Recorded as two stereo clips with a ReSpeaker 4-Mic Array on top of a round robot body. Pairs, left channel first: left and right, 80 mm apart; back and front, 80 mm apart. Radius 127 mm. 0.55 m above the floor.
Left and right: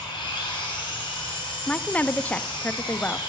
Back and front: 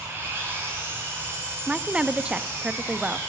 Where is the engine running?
65° left, 2.5 m.